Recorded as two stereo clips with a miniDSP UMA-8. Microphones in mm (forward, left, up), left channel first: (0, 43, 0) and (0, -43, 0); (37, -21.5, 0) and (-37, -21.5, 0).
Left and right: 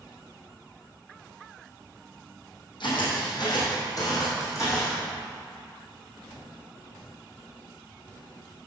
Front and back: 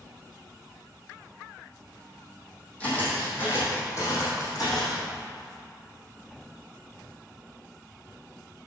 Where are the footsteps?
70° left, 3 m; by 5.0 s 35° left, 4 m.